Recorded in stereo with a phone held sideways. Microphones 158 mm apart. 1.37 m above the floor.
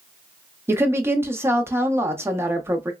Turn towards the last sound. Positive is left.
turn(degrees=-15)  # may be behind; listen again after turning